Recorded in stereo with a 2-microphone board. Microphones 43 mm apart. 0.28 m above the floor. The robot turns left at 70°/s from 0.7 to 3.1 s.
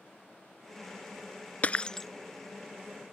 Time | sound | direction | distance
1.6 | breaking glass | 35° left (ahead or behind) | ?